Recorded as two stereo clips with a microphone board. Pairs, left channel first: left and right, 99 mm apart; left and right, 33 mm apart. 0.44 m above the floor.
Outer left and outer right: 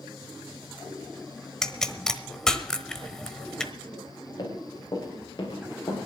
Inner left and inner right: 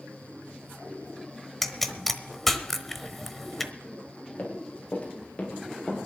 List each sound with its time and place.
1.6 s a pop: 5° left (ahead or behind), 0.9 m
4.4 s running footsteps: 40° left (ahead or behind), 5.5 m